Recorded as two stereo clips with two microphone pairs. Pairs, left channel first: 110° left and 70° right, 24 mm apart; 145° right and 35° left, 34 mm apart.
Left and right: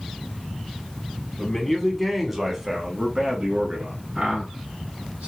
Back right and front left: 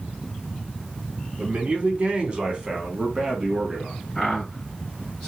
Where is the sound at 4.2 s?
90° right, 3 m.